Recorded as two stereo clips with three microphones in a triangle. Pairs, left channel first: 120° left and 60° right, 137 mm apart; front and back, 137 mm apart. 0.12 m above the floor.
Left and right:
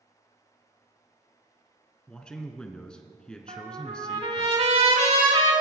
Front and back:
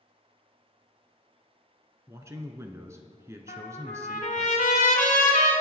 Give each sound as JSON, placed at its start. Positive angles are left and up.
{"t": 2.1, "sound": "a man speaking", "azimuth_deg": -165, "distance_m": 1.1}
{"t": 3.5, "sound": "a trumpet", "azimuth_deg": -20, "distance_m": 3.5}